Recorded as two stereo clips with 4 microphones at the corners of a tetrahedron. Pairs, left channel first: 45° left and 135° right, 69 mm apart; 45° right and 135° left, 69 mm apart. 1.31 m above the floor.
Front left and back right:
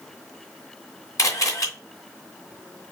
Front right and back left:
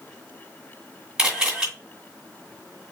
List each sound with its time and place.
1.2 s a camera shutter: 55° left, 2 m